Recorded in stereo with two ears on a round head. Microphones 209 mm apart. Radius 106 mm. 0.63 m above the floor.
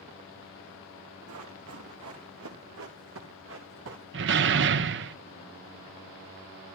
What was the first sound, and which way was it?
Running footsteps, 75° right (ahead or behind).